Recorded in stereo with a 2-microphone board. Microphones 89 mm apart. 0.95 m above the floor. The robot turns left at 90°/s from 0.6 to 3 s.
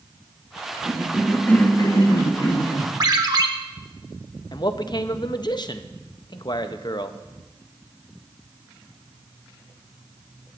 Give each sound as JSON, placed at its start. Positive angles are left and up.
{"t": 0.8, "sound": "a cough", "azimuth_deg": -145, "distance_m": 1.7}
{"t": 3.0, "sound": "a ringtone", "side_deg": -45, "distance_m": 0.9}
{"t": 4.5, "sound": "a man speaking", "side_deg": 50, "distance_m": 0.6}